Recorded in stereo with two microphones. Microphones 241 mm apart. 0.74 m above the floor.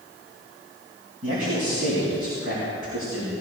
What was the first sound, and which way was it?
A man speaking, 65° right (ahead or behind).